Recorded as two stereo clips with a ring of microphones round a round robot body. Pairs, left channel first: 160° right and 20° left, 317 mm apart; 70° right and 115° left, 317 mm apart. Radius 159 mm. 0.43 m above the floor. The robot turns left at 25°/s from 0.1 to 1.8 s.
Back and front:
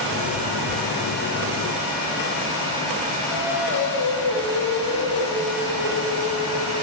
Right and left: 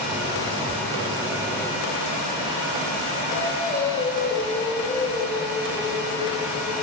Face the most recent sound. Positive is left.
turn(degrees=-140)